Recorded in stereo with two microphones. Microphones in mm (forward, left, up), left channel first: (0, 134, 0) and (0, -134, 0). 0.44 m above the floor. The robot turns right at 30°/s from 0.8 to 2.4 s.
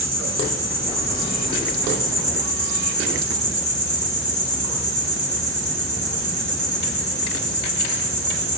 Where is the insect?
80° left, 4 m; by 8.6 s 130° left, 4 m.